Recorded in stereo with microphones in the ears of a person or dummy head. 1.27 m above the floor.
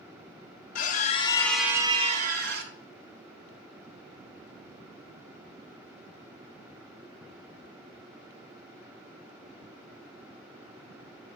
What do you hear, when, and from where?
0.8 s a scream: 45° left (ahead or behind), 0.7 m; by 2.7 s 55° right (ahead or behind), 0.9 m